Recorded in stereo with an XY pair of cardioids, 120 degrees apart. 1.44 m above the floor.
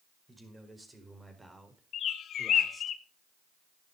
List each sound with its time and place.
0.3 s a man speaking: 15° right, 5 m; by 2.9 s 20° right, 3.5 m
1.9 s a bird: 55° left, 1.1 m